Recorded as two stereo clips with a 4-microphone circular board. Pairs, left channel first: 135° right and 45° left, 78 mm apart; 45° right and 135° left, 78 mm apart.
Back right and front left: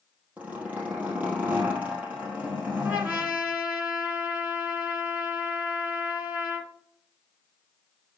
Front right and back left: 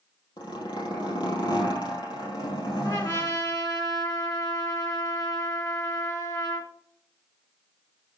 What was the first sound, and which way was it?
A zipper, 25° right.